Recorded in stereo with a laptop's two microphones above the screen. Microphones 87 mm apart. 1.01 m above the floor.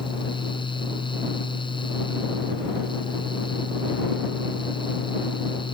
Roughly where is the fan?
Left.